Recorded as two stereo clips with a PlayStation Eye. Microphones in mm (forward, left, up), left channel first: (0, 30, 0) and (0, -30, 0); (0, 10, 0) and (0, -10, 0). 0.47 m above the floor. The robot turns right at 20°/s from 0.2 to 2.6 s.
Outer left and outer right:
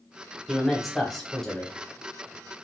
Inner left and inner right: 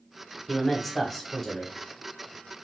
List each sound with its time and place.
0.5 s a man speaking: 5° right (ahead or behind), 1.0 m; by 1.7 s 10° left (ahead or behind), 1.0 m